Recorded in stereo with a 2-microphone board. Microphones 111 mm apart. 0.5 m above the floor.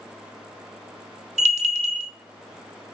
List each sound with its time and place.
1.4 s a bell: 85° right, 0.8 m